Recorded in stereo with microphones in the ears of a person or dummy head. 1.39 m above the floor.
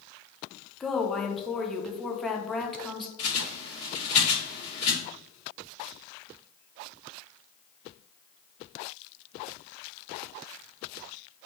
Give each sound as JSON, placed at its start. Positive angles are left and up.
{"t": 0.8, "sound": "a woman speaking", "side_deg": 0, "distance_m": 0.5}
{"t": 3.2, "sound": "a bird", "side_deg": 35, "distance_m": 1.6}